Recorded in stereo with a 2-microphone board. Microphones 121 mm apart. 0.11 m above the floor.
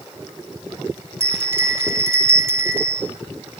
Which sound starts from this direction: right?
A bell, at 1.2 s.